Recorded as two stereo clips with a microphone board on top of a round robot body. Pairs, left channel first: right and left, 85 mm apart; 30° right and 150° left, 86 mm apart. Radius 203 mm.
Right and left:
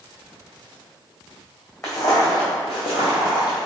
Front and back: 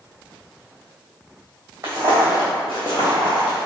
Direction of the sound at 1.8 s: 145° right.